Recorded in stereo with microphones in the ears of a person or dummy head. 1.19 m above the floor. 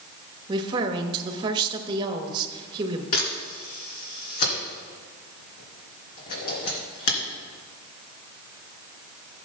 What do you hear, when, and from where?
0.5 s a woman speaking: 25° right (ahead or behind), 1.2 m
3.1 s a camera shutter: 45° left (ahead or behind), 2.5 m